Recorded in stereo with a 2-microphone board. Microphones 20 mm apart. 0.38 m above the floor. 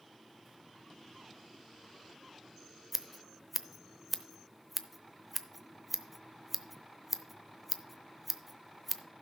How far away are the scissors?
About 0.6 m.